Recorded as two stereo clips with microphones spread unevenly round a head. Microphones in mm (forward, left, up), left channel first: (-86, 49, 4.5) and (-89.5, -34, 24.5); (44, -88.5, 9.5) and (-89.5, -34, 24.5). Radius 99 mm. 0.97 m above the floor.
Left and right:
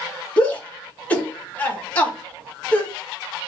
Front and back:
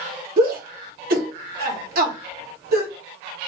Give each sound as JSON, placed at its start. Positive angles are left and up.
{"t": 0.4, "sound": "a shout", "azimuth_deg": 150, "distance_m": 1.5}